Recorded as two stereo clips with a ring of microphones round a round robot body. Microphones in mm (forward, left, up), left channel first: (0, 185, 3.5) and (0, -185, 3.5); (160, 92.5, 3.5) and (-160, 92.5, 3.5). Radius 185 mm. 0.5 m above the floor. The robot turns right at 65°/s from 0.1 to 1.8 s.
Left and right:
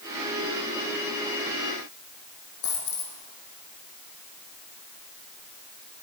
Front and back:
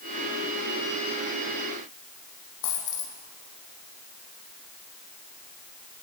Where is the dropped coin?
25° left, 4.5 m.